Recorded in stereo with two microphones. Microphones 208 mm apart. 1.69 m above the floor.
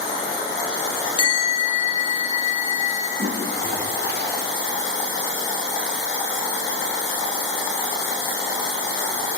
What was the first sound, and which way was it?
A bell, 25° left (ahead or behind).